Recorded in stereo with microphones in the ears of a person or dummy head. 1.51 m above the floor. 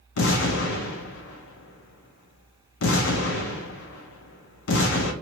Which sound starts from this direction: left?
An explosion, at 0.2 s.